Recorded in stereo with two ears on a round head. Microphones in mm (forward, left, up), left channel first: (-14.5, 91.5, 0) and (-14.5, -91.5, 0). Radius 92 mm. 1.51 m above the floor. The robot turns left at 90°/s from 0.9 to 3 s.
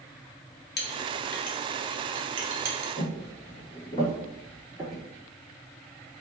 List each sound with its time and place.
0.8 s a clink: 55° left (ahead or behind), 0.7 m; by 2.9 s 50° right (ahead or behind), 0.7 m
3.0 s footsteps: 40° left (ahead or behind), 1.9 m; by 5.0 s centre (ahead or behind), 1.7 m